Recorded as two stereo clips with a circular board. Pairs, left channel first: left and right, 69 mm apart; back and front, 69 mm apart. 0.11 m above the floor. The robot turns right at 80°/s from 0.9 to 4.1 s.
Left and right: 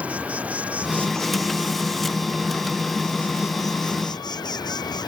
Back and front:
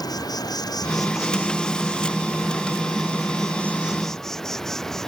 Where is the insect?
160° right; by 5.1 s 95° left.